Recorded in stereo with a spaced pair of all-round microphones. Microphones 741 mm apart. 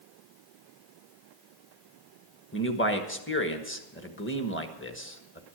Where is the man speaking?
15° left (ahead or behind), 1.4 m.